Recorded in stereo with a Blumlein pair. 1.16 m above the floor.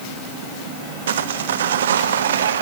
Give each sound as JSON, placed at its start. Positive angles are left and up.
{"t": 1.1, "sound": "sawing", "azimuth_deg": -60, "distance_m": 0.9}